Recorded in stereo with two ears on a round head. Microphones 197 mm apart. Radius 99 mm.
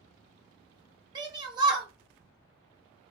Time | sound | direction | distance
1.1 | a shout | 20° right (ahead or behind) | 0.7 m